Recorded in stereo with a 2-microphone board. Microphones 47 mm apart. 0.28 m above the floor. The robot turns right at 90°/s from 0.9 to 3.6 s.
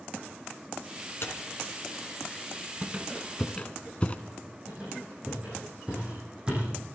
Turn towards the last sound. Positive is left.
turn(degrees=-25)  # may be behind; listen again after turning